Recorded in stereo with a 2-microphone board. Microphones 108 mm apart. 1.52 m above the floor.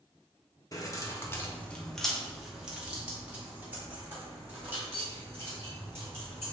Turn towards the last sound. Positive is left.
turn(degrees=-25)  # may be behind; listen again after turning